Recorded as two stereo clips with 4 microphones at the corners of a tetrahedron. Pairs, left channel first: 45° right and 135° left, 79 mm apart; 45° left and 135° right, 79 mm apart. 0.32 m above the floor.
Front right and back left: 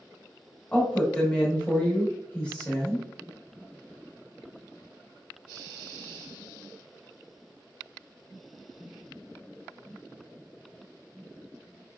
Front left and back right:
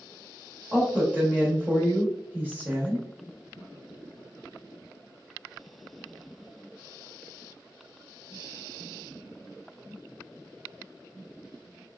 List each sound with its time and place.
0.7 s a woman speaking: 95° right, 0.9 m